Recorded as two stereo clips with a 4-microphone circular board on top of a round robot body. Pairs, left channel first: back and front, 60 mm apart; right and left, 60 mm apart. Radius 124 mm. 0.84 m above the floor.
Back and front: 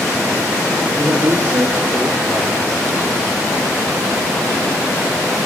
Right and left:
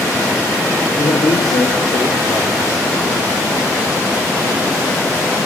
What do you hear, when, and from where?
1.0 s a woman speaking: 60° right, 3 m